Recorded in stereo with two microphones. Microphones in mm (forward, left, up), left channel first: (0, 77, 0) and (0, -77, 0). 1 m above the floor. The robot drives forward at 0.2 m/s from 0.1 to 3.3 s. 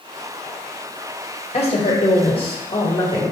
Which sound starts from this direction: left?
A woman speaking, at 1.5 s.